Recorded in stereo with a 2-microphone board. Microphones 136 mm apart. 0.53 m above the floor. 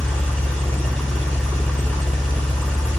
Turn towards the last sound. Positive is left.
turn(degrees=5)  # may be behind; listen again after turning